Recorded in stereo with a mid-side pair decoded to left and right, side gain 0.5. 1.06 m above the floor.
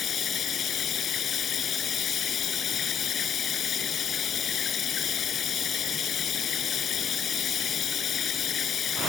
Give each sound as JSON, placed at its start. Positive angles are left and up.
{"t": 0.0, "sound": "running water", "azimuth_deg": 50}